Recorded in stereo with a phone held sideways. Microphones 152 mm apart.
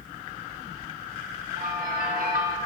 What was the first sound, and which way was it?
A bell, 70° right (ahead or behind).